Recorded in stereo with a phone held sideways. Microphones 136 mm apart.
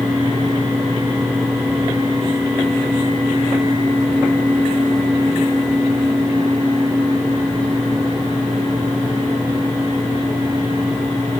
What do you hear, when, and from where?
0.0 s a fan: 20° left (ahead or behind), 3 m